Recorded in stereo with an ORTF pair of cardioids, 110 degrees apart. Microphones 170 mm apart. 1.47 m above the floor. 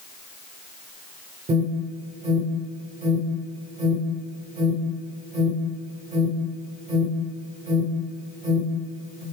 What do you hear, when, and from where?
1.5 s an alarm: 45° right, 8 m